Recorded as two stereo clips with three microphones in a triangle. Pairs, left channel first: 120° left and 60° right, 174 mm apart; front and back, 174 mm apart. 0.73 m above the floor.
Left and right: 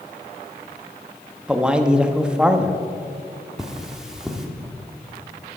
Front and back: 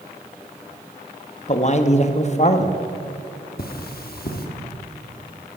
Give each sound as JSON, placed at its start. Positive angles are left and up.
{"t": 1.5, "sound": "a man speaking", "azimuth_deg": 20, "distance_m": 0.6}
{"t": 3.6, "sound": "cutlery clinking", "azimuth_deg": 25, "distance_m": 1.0}